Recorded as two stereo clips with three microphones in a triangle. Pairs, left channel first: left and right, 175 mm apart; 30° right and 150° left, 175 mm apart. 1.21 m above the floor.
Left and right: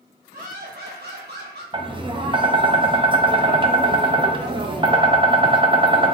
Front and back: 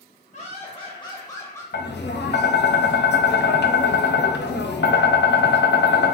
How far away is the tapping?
About 0.6 m.